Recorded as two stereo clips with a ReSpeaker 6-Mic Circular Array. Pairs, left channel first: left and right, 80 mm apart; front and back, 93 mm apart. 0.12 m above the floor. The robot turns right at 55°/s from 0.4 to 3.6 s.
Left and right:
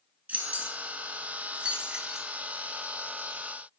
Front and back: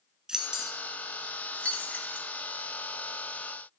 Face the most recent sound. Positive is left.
turn(degrees=65)